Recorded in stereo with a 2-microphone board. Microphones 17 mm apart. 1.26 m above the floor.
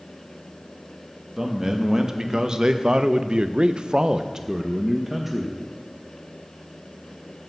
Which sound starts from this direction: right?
A man speaking, at 1.4 s.